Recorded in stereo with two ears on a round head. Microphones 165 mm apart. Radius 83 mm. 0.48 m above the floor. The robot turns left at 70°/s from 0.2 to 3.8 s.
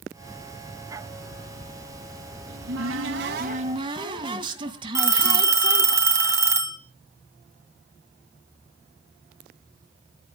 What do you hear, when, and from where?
2.5 s a cupboard door: 60° right, 1.9 m; by 6.0 s 155° right, 1.9 m
5.0 s a phone ringing: 15° right (ahead or behind), 2.5 m